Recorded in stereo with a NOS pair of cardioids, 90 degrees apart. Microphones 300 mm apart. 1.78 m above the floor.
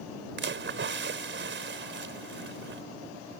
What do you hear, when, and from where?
0.4 s a splash: 40° right